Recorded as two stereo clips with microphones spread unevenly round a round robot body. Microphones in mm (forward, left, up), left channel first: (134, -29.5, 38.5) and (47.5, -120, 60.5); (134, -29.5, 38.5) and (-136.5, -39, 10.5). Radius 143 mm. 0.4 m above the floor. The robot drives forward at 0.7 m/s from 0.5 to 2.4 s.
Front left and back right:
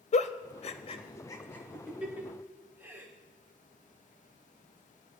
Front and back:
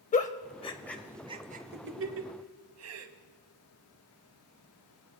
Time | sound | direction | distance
0.1 | a giggle | 70° left | 0.8 m